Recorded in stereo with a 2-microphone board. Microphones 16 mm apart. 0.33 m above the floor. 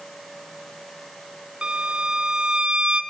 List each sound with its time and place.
1.6 s a violin: 65° right (ahead or behind), 0.6 m